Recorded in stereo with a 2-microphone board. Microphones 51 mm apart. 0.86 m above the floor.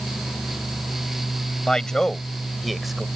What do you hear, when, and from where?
1.7 s a man speaking: 15° left (ahead or behind); by 3.0 s 5° right (ahead or behind)